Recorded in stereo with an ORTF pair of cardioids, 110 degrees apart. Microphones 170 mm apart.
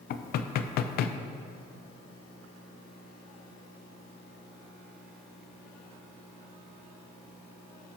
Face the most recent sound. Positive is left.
turn(degrees=65)